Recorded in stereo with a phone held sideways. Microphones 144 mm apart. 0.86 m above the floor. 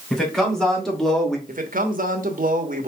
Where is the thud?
I don't hear a thud.